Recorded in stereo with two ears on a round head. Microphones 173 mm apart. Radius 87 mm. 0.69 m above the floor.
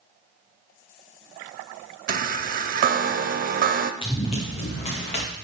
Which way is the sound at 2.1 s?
45° right (ahead or behind).